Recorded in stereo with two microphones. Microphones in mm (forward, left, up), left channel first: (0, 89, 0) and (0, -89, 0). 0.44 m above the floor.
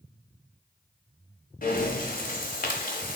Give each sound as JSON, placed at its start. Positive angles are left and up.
{"t": 1.6, "sound": "breathing", "side_deg": 50, "distance_m": 0.7}